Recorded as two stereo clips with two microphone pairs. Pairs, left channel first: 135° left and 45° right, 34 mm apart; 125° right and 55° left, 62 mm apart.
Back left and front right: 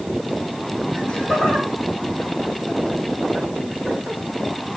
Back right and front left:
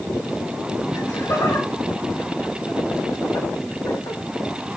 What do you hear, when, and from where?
0.9 s laughter: 160° right, 3.5 m; by 4.2 s 140° right, 1.7 m